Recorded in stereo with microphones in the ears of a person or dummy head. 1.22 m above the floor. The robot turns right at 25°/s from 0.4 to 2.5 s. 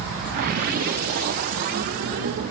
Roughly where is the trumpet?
No trumpet in this recording.